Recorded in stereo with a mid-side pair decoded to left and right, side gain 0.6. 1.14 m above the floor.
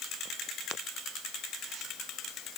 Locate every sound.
Only background noise.